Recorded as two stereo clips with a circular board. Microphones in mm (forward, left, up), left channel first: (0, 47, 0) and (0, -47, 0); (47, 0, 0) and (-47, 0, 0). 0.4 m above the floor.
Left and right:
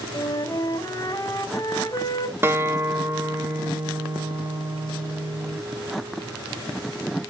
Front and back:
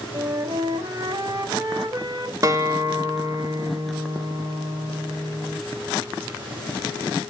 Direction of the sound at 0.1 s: 140° left.